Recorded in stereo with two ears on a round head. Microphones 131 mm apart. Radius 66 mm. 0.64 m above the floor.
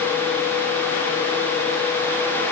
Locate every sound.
Only background noise.